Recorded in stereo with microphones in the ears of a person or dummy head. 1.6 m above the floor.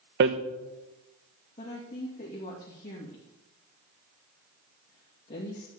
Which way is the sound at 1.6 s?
35° left (ahead or behind).